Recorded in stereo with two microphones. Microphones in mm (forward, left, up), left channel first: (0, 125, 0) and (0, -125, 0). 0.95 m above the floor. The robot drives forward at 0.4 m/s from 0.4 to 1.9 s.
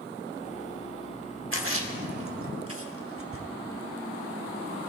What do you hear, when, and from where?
1.5 s a splash: 55° right (ahead or behind), 1.1 m; by 3.5 s 60° right (ahead or behind), 1.0 m